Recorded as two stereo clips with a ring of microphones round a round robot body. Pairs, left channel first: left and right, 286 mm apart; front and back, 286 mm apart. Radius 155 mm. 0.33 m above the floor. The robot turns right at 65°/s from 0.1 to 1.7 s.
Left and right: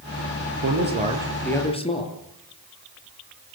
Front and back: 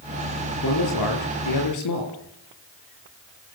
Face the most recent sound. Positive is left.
turn(degrees=20)